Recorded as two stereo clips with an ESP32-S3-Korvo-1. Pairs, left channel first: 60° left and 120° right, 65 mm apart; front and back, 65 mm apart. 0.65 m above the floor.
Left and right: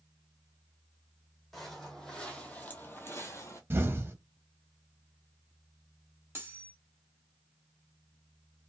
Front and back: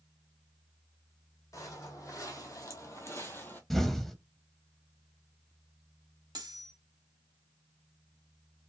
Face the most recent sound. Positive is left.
turn(degrees=-175)